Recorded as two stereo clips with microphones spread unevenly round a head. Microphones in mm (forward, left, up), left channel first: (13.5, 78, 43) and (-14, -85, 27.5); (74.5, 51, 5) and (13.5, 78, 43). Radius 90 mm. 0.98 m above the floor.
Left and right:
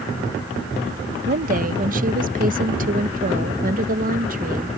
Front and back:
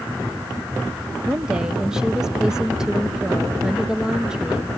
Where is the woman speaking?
100° right.